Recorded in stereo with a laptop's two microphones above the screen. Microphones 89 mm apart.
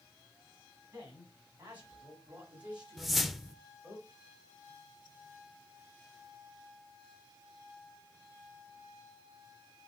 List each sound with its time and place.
0.9 s a man speaking: 25° right (ahead or behind), 5.5 m; by 4.0 s 10° right (ahead or behind), 4 m
3.0 s a whoosh: centre (ahead or behind), 0.5 m